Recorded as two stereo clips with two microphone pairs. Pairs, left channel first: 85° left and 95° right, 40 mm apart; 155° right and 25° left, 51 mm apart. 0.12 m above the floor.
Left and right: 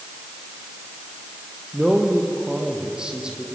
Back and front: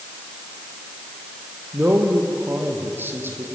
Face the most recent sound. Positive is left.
turn(degrees=-25)